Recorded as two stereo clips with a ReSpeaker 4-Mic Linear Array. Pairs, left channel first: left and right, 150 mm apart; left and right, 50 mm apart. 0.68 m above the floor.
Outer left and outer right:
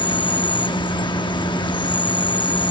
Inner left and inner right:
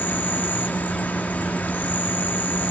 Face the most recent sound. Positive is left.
turn(degrees=30)  # may be behind; listen again after turning